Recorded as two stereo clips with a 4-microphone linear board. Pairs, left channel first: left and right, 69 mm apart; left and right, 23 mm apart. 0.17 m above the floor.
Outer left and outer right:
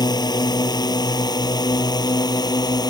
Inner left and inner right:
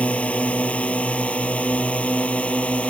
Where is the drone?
65° left (ahead or behind).